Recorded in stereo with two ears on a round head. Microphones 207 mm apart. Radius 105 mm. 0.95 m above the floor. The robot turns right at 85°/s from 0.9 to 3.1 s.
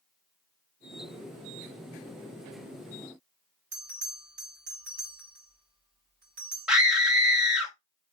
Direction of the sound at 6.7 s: 5° right (ahead or behind).